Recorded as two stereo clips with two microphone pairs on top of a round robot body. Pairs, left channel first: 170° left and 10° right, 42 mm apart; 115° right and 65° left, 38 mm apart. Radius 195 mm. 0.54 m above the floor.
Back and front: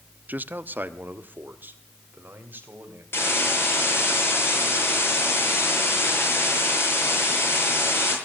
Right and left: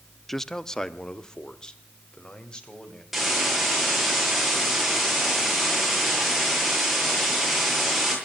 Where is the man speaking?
45° right, 0.9 m; by 3.0 s 50° right, 3.5 m.